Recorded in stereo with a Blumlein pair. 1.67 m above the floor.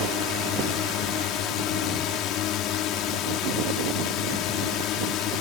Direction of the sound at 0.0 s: 35° left.